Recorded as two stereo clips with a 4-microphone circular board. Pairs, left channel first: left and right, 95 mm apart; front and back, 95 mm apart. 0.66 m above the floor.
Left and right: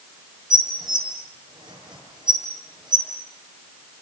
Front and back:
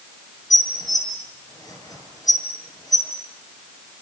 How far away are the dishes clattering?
About 7.5 m.